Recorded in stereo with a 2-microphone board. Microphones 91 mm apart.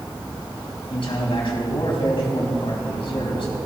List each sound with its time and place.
0.9 s a man speaking: 75° left (ahead or behind), 4.5 m